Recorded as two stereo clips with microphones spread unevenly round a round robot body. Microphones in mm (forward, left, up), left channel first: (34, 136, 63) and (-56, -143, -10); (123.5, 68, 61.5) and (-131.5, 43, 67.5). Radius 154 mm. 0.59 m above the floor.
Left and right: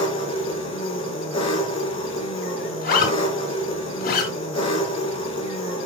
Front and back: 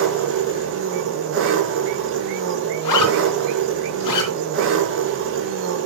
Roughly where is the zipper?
Ahead.